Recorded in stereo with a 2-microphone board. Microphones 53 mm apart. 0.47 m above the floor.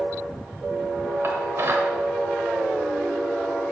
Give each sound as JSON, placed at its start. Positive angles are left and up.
{"t": 1.2, "sound": "dishes clattering", "side_deg": -55, "distance_m": 1.1}